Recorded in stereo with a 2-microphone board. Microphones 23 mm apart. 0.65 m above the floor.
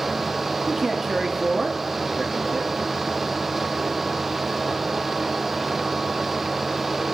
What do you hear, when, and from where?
0.7 s a man speaking: 10° right (ahead or behind), 1.2 m